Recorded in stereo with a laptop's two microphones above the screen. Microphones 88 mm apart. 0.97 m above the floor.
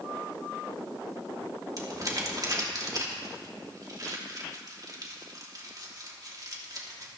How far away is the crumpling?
About 2.5 m.